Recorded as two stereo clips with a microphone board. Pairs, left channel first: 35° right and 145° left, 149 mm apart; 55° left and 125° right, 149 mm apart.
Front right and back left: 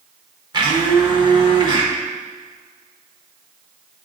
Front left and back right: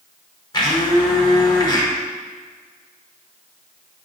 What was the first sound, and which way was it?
A blender, 100° left.